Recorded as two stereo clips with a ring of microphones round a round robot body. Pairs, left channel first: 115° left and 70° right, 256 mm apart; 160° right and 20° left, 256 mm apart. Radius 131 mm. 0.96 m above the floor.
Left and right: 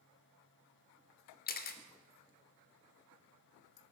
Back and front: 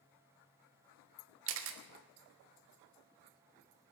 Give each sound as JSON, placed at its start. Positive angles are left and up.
{"t": 1.5, "sound": "a camera shutter", "azimuth_deg": 60, "distance_m": 1.2}